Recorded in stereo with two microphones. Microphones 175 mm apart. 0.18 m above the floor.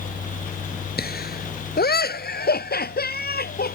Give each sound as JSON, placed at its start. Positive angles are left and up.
{"t": 1.0, "sound": "laughter", "side_deg": 65}